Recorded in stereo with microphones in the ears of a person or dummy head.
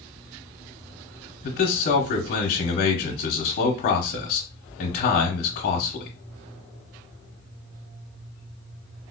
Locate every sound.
1.4 s a man speaking: 45° left (ahead or behind), 0.8 m